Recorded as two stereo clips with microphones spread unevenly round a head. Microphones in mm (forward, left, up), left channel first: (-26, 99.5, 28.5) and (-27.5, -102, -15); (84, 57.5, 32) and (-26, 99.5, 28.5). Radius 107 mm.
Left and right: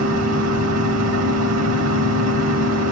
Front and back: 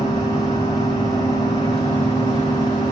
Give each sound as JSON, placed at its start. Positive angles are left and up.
{"t": 0.0, "sound": "a machine running", "azimuth_deg": -90, "distance_m": 2.0}